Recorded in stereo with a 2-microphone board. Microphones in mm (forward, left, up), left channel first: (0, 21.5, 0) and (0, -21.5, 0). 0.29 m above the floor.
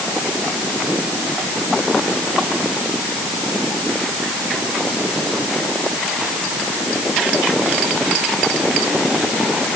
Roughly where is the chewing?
I don't hear chewing.